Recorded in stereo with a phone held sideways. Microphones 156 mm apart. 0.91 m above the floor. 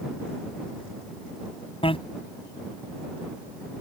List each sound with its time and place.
1.8 s a bicycle bell: 35° left (ahead or behind)